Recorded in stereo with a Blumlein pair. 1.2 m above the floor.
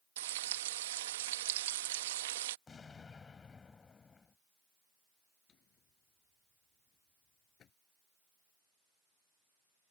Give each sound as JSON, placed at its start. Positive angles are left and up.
{"t": 0.2, "sound": "frying", "azimuth_deg": -55}
{"t": 2.7, "sound": "an explosion", "azimuth_deg": 15}
{"t": 5.5, "sound": "a drawer", "azimuth_deg": 30}